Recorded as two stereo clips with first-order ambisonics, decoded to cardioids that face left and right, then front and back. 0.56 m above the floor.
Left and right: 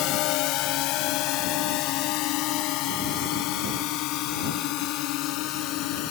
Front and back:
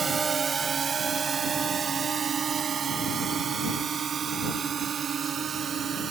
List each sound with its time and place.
0.0 s a drone: 110° left; by 6.1 s 120° left